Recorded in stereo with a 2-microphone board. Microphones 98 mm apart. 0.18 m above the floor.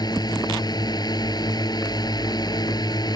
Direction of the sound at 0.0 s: 45° left (ahead or behind).